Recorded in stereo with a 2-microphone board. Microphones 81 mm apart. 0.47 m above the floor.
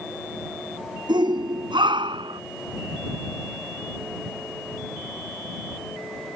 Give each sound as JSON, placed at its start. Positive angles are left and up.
{"t": 1.1, "sound": "a shout", "side_deg": -65}